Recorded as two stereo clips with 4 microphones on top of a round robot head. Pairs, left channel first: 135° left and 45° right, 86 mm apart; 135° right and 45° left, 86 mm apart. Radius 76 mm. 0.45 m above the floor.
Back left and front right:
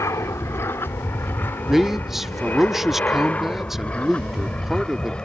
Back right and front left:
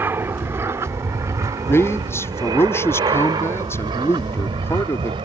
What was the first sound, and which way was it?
An aircraft, 95° left.